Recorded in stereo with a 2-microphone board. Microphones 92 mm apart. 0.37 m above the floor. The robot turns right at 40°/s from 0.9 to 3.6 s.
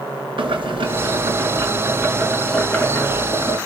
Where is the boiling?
65° right, 4.5 m; by 3.6 s 45° left, 4.5 m.